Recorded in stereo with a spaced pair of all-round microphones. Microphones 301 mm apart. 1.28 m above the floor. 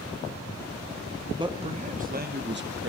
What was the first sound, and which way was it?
A man speaking, 15° right (ahead or behind).